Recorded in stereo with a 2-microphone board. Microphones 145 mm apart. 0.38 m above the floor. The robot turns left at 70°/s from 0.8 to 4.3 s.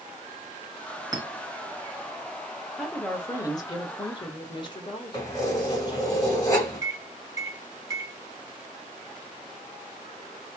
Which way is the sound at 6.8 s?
25° right (ahead or behind).